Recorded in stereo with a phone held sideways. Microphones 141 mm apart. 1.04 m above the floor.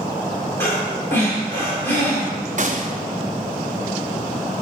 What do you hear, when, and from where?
0.6 s breathing: 15° left (ahead or behind), 1.9 m
2.6 s a gunshot: 55° right (ahead or behind), 0.6 m